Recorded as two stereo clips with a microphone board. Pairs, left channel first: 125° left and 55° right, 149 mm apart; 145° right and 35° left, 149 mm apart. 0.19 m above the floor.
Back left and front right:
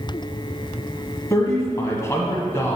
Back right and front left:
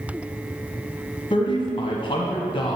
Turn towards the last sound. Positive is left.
turn(degrees=-175)